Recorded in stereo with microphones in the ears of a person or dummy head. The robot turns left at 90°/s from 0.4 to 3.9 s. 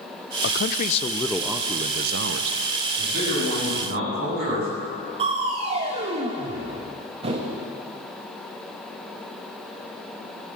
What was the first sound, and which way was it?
A man speaking, 85° left.